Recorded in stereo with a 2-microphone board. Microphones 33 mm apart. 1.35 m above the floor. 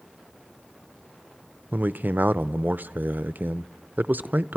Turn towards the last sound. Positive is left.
turn(degrees=-70)  # may be behind; listen again after turning